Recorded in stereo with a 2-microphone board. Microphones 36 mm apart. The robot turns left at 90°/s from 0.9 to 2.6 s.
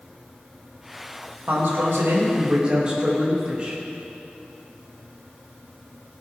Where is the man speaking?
55° right, 3 m; by 3.8 s 155° right, 3 m.